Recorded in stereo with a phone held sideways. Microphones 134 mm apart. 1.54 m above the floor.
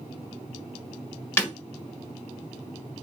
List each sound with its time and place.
1.4 s breaking glass: 15° left (ahead or behind), 1.4 m